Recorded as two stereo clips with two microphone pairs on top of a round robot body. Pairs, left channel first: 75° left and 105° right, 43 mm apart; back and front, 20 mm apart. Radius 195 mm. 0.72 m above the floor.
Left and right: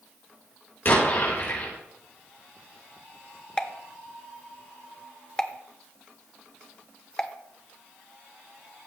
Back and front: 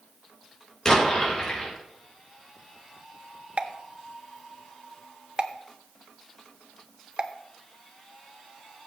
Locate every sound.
0.8 s an explosion: 120° left, 4 m
3.6 s a pop: 5° left, 1.1 m